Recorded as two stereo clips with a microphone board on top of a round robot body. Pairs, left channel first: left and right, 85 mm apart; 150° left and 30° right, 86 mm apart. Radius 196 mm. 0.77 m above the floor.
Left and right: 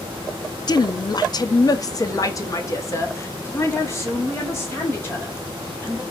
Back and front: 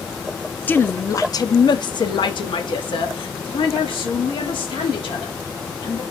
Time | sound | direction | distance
0.7 | a woman speaking | 85° left | 0.7 m